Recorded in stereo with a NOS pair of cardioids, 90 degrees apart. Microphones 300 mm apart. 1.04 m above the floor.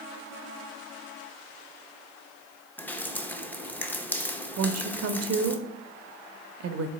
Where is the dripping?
5° left, 0.6 m.